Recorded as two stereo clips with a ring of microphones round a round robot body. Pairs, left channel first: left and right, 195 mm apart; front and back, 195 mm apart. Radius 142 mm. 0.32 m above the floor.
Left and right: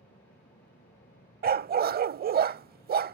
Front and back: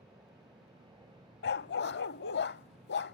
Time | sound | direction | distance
0.0 | an aircraft | 120° left | ?
1.4 | a dog barking | 45° right | ?